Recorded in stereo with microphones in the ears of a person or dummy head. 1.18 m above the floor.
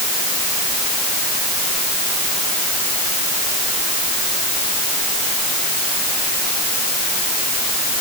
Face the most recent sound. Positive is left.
No sound to turn to.